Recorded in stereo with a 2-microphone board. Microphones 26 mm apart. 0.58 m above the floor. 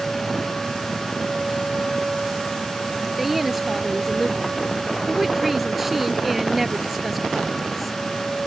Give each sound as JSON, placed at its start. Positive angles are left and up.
{"t": 3.2, "sound": "a woman speaking", "side_deg": -5}